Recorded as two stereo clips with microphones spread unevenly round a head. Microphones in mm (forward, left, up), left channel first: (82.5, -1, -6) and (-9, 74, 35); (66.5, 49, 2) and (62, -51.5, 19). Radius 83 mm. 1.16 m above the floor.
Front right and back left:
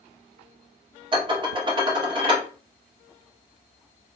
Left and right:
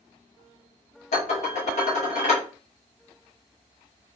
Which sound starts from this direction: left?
Dishes clattering, at 1.1 s.